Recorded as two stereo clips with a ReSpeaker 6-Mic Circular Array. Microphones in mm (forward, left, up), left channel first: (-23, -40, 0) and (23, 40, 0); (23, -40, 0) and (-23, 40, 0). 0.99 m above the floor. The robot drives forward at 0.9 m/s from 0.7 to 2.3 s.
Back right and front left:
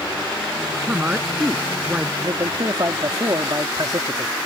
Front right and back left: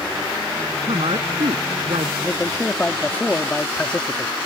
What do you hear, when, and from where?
0.8 s a woman speaking: 130° left; by 2.1 s 135° left
2.2 s a man speaking: 15° left